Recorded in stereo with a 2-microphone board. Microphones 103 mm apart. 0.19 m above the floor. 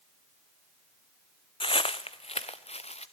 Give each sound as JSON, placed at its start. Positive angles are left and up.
{"t": 1.6, "sound": "footsteps", "side_deg": 55, "distance_m": 0.9}